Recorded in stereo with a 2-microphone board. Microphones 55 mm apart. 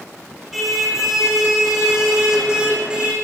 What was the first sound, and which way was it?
A car horn, centre (ahead or behind).